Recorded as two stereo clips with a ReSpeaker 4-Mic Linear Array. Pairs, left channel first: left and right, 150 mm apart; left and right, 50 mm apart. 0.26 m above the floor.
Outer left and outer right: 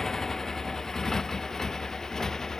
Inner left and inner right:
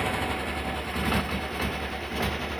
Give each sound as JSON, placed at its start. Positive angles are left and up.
{"t": 0.0, "sound": "a motorcycle", "side_deg": 5}